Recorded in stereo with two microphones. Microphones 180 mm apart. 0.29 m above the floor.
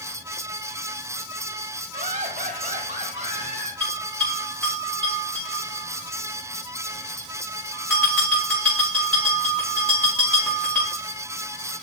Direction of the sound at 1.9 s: 45° right (ahead or behind).